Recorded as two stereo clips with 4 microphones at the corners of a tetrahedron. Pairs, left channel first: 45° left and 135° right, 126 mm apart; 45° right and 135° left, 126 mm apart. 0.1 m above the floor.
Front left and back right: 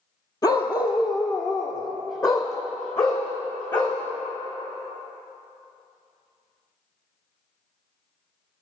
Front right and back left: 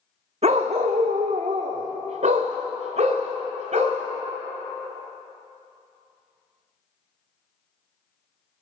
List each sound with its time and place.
0.4 s a dog barking: 105° left, 1.2 m; by 4.0 s 100° left, 3 m